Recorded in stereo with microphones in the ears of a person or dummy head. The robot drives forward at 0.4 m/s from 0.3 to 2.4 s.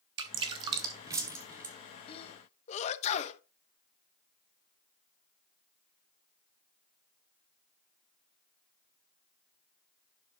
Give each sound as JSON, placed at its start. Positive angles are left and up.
{"t": 0.2, "sound": "dripping", "side_deg": -25, "distance_m": 0.7}
{"t": 2.1, "sound": "a sneeze", "side_deg": 35, "distance_m": 1.2}